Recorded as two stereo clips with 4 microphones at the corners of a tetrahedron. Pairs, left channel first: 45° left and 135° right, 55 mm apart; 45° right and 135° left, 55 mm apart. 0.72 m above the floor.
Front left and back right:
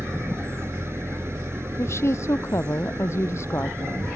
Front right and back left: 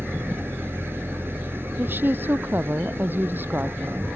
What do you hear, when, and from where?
0.0 s an engine running: straight behind
1.8 s a woman speaking: 80° left